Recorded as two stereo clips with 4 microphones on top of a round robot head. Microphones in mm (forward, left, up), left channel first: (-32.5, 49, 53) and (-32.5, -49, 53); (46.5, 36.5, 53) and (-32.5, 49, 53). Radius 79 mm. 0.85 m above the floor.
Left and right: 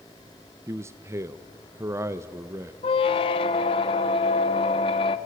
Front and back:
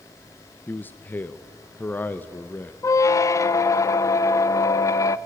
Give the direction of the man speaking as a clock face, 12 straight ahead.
2 o'clock.